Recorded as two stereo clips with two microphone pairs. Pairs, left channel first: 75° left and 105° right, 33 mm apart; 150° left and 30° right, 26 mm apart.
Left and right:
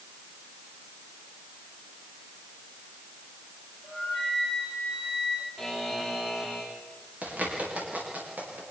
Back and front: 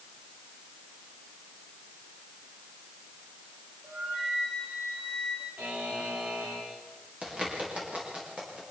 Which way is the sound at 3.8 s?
35° right.